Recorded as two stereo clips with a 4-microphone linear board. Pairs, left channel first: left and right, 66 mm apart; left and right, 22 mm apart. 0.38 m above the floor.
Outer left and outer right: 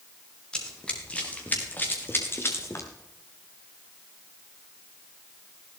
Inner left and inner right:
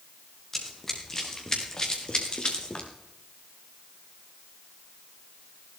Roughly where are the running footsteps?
Centre.